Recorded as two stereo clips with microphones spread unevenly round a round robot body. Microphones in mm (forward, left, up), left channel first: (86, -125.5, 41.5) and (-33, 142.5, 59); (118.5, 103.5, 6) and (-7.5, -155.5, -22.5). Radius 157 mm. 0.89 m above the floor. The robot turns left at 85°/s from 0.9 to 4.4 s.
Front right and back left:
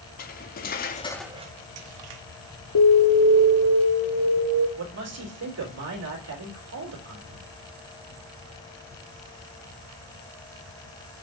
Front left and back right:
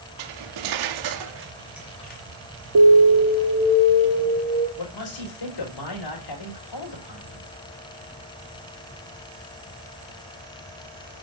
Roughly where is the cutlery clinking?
Behind right.